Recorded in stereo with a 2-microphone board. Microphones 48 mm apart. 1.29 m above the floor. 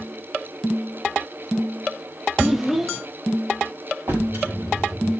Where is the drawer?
60° right (ahead or behind), 5 m.